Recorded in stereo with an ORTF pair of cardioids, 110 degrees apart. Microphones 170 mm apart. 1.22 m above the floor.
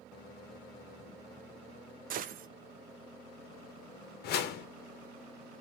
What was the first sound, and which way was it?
A gunshot, 55° right.